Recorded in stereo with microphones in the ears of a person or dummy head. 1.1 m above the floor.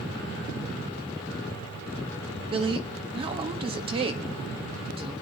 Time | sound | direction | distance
2.5 | a woman speaking | 30° right (ahead or behind) | 1.4 m